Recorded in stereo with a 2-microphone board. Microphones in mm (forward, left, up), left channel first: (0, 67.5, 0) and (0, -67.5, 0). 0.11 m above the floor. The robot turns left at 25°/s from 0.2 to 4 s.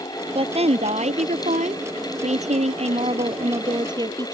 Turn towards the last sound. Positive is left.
turn(degrees=-145)